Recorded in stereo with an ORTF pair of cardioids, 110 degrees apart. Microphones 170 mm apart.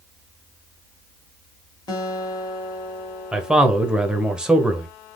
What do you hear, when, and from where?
1.9 s a guitar: 25° left, 1.3 m
3.3 s a man speaking: 5° right, 1.0 m